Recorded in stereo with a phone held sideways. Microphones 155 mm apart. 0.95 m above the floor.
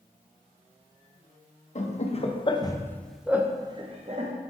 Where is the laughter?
50° left (ahead or behind), 1.0 m; by 4.3 s 50° right (ahead or behind), 0.9 m.